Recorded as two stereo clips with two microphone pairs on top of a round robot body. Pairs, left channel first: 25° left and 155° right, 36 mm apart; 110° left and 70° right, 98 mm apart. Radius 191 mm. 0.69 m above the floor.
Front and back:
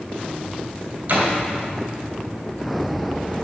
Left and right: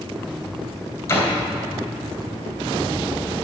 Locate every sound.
1.1 s a door slam: 170° left, 3 m